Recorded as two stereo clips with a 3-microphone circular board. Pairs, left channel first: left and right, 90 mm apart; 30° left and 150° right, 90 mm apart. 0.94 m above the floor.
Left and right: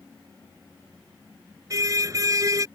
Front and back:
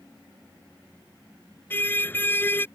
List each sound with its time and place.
1.7 s a car horn: 40° right